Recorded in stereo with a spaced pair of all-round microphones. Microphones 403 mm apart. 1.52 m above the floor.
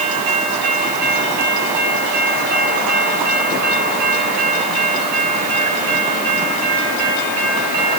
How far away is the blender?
I don't hear a blender.